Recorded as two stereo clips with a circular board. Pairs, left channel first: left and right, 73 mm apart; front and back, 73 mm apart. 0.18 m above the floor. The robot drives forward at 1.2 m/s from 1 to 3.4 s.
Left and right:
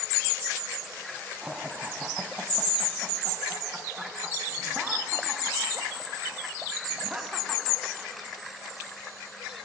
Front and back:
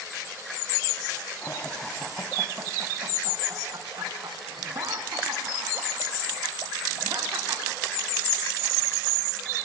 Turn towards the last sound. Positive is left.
turn(degrees=-170)